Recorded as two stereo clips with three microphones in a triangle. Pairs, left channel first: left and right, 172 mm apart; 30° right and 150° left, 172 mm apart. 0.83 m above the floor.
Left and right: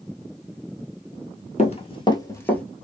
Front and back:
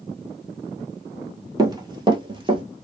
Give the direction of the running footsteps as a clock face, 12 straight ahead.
9 o'clock.